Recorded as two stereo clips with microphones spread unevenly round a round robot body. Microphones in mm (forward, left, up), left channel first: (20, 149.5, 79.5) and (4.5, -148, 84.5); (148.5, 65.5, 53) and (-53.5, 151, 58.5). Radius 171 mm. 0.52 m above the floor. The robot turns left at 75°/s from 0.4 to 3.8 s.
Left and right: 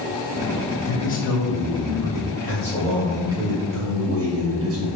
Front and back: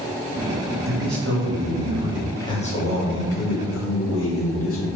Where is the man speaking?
170° left, 2.5 m; by 4.9 s 50° right, 2.5 m.